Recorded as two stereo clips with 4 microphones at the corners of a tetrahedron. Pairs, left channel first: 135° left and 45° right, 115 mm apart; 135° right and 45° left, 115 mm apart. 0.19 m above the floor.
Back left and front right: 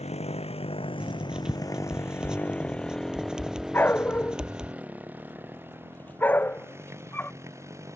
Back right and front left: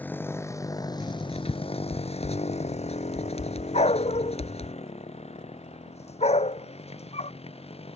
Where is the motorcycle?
150° left; by 8.0 s 110° right.